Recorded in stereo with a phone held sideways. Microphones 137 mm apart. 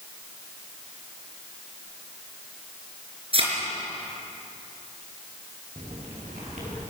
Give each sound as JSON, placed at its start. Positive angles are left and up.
{"t": 3.3, "sound": "a thud", "side_deg": -50, "distance_m": 4.5}
{"t": 5.8, "sound": "footsteps", "side_deg": -75, "distance_m": 7.5}